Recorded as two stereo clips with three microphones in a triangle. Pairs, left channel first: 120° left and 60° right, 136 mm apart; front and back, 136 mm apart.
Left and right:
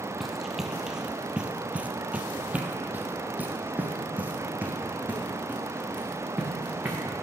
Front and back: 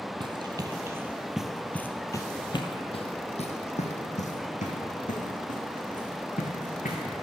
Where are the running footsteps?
150° right, 1.2 m; by 7.0 s 20° left, 3.5 m.